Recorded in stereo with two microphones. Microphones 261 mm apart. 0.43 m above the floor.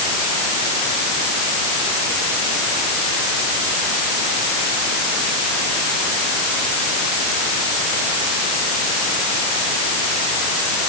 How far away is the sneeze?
No sneeze in this recording.